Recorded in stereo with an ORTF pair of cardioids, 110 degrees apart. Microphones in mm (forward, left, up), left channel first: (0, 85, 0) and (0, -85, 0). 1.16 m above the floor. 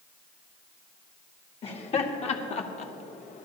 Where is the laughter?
35° left, 2 m; by 3.5 s 50° left, 1.2 m.